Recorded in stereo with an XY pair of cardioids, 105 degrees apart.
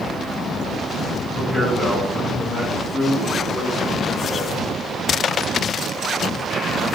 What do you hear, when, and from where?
1.4 s a man speaking: 15° left, 4.5 m; by 4.5 s 5° left, 3 m